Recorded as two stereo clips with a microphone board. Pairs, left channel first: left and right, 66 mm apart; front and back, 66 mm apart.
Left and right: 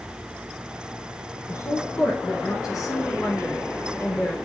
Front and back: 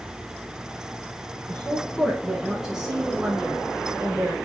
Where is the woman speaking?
75° left, 2.0 m; by 4.4 s 130° left, 2.5 m.